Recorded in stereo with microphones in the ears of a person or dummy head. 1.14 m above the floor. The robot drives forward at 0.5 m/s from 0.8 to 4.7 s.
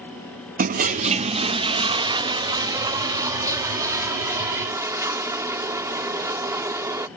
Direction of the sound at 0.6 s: 40° right (ahead or behind).